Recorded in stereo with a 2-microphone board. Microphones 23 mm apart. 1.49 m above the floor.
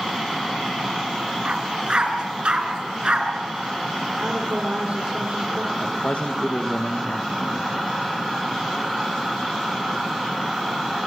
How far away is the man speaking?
About 2.0 m.